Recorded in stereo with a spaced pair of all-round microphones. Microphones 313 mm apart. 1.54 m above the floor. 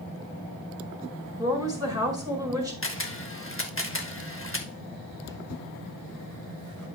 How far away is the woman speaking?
About 4.5 m.